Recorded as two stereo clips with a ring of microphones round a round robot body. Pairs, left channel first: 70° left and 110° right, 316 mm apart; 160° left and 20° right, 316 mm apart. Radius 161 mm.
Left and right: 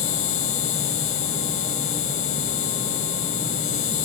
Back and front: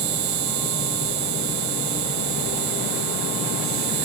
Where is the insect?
15° left.